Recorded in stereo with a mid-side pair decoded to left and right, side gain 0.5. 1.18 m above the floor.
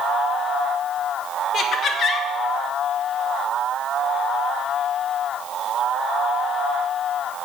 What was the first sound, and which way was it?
Laughter, 55° left.